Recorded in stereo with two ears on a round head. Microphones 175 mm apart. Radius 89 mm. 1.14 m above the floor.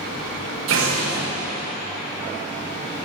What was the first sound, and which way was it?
An explosion, 80° right.